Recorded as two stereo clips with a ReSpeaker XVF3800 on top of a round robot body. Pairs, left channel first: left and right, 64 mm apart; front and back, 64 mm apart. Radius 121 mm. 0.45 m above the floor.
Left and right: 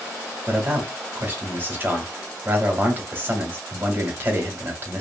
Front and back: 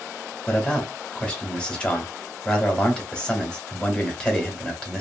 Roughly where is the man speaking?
Ahead right.